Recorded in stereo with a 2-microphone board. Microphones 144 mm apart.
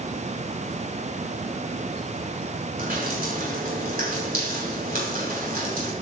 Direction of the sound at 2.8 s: 85° right.